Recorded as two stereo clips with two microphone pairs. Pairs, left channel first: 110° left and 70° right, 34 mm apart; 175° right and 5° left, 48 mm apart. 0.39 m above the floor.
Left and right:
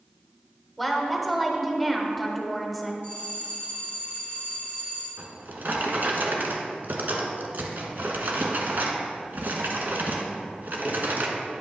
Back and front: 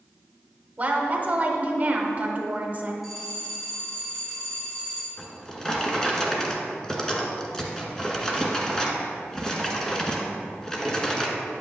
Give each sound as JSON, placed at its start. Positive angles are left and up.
{"t": 0.8, "sound": "a woman speaking", "azimuth_deg": 15, "distance_m": 1.1}
{"t": 3.0, "sound": "a bell", "azimuth_deg": -80, "distance_m": 3.0}
{"t": 5.2, "sound": "a drawer", "azimuth_deg": -100, "distance_m": 1.1}